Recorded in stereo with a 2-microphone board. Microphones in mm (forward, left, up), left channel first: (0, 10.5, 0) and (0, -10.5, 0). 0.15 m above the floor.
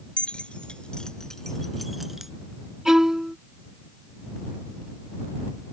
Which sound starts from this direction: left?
Keys jangling, at 0.2 s.